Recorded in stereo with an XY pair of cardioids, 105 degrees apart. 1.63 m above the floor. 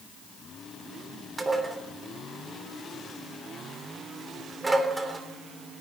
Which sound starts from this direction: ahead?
Dishes clattering, at 1.4 s.